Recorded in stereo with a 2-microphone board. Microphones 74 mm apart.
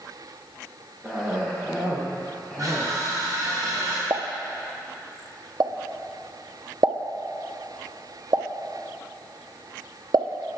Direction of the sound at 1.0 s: 15° right (ahead or behind).